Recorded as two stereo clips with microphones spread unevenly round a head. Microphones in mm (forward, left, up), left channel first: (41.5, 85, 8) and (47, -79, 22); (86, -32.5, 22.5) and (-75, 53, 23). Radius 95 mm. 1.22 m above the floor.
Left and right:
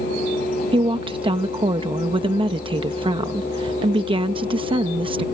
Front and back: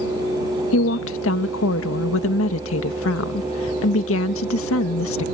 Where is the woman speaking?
30° right.